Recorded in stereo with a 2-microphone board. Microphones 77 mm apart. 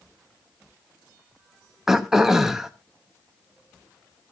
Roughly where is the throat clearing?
Centre.